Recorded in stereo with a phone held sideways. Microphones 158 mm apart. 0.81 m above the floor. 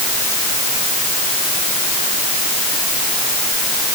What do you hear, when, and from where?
Only background noise.